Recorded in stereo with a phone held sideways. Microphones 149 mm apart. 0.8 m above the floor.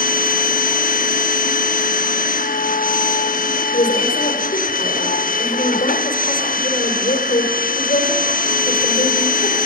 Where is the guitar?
I don't hear a guitar.